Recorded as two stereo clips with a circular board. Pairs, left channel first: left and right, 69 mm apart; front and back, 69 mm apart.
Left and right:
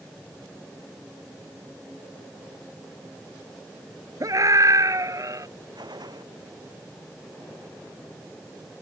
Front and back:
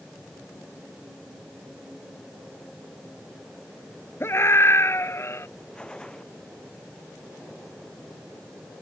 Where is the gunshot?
75° right.